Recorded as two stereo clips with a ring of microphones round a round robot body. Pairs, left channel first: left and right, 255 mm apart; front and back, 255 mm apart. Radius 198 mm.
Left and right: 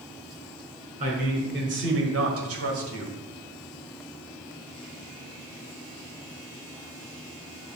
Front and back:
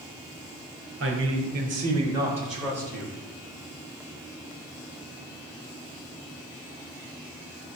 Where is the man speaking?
150° right, 2 m; by 3.2 s 75° right, 2.5 m.